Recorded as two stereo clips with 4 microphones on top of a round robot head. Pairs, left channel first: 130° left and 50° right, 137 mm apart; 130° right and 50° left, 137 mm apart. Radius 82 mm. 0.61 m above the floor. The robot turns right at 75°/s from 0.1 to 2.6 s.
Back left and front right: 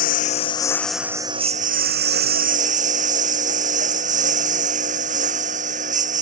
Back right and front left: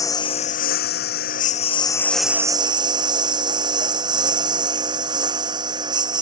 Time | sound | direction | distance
0.0 | a lawn mower | 160° left | ?